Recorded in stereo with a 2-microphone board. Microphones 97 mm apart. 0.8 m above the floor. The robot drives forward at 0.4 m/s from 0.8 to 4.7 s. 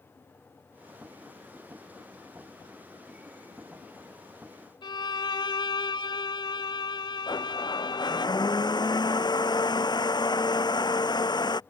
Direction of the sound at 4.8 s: 55° left (ahead or behind).